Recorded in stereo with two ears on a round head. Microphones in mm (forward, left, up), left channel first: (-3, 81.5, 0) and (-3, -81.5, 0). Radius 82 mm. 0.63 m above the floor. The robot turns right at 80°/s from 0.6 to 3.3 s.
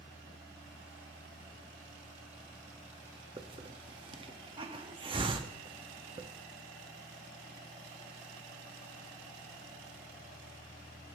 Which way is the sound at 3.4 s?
30° right (ahead or behind).